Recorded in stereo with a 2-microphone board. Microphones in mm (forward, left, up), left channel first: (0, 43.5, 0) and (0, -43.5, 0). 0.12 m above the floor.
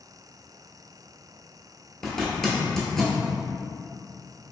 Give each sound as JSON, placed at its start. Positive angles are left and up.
{"t": 2.0, "sound": "a zipper", "side_deg": 5, "distance_m": 0.9}